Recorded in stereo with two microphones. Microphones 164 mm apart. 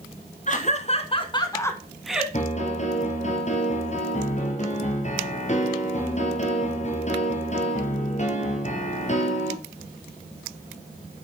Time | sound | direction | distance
0.5 | laughter | 50° left (ahead or behind) | 2.5 m
2.3 | a piano | 45° left (ahead or behind) | 2.5 m